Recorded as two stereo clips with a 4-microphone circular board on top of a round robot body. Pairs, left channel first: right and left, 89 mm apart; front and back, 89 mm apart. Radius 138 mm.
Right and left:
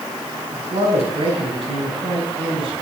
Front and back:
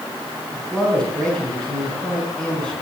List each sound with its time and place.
0.5 s a man speaking: 80° left, 5.5 m